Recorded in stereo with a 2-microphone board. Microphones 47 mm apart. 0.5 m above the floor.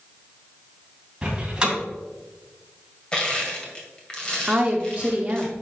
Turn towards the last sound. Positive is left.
turn(degrees=-25)  # may be behind; listen again after turning